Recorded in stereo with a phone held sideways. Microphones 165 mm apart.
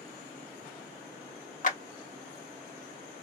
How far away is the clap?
About 1.3 m.